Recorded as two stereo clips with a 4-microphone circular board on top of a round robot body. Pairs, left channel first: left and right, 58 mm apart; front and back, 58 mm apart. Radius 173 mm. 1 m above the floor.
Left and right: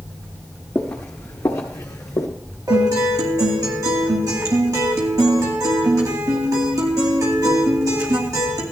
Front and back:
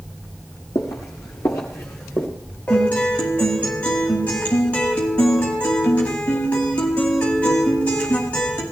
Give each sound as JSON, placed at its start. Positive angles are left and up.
{"t": 0.8, "sound": "footsteps", "azimuth_deg": 25, "distance_m": 1.1}
{"t": 2.7, "sound": "a guitar", "azimuth_deg": -70, "distance_m": 2.5}